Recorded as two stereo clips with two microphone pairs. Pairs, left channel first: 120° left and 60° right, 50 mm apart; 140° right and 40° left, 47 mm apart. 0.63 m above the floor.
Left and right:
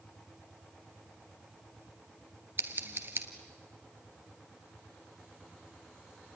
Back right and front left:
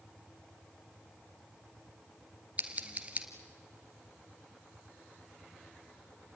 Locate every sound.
2.6 s scissors: 20° right, 1.7 m